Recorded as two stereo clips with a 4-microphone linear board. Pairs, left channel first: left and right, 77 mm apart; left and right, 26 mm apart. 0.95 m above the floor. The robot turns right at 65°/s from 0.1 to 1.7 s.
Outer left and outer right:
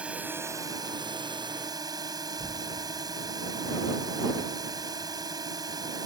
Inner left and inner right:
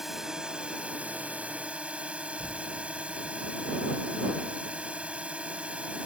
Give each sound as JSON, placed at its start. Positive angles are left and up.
{"t": 0.0, "sound": "a drone", "azimuth_deg": -165}
{"t": 2.4, "sound": "an explosion", "side_deg": 60}